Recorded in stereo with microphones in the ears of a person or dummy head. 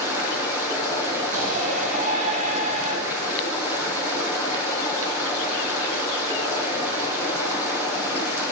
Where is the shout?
45° right (ahead or behind), 9.5 m.